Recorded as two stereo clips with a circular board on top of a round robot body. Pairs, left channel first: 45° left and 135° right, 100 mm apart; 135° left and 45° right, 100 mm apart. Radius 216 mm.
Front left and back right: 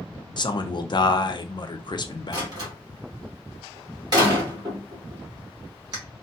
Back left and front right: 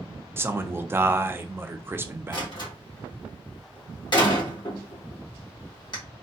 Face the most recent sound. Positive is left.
turn(degrees=180)